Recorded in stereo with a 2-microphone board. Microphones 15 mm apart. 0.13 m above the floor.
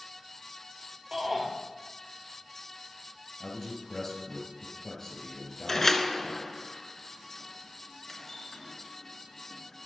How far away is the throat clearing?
I don't hear throat clearing.